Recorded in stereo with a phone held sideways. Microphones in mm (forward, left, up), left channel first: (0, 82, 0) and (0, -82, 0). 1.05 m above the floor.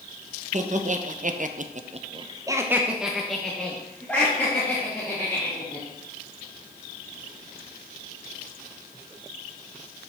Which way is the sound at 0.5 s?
45° right (ahead or behind).